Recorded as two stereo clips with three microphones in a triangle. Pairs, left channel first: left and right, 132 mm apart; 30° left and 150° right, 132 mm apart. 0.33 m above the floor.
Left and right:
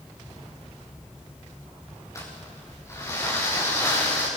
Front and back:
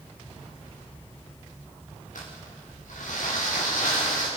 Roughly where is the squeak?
I don't hear a squeak.